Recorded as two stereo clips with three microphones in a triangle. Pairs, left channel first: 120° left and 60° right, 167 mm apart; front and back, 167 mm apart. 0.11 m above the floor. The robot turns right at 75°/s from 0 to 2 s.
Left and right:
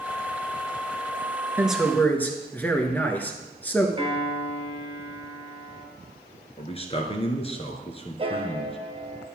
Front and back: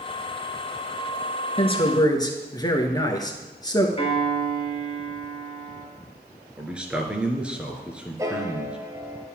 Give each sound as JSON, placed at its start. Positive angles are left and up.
{"t": 1.6, "sound": "a man speaking", "azimuth_deg": 15, "distance_m": 1.3}
{"t": 4.0, "sound": "a piano", "azimuth_deg": -30, "distance_m": 2.0}
{"t": 6.6, "sound": "a man speaking", "azimuth_deg": 100, "distance_m": 1.3}
{"t": 8.2, "sound": "a piano", "azimuth_deg": -110, "distance_m": 1.0}